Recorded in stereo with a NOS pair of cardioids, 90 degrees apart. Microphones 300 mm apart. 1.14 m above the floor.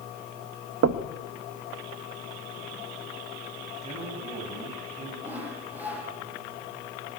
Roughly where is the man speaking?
Ahead right.